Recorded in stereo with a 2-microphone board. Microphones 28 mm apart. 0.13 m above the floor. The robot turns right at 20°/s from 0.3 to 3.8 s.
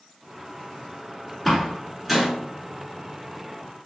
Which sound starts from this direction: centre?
A door slam, at 1.4 s.